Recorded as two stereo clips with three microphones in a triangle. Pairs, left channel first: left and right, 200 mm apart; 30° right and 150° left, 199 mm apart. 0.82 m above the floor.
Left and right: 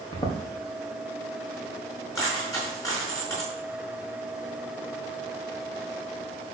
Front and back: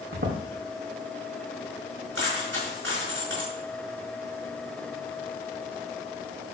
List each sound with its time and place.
0.1 s footsteps: 155° left, 3 m
2.1 s a dropped coin: 165° left, 4.5 m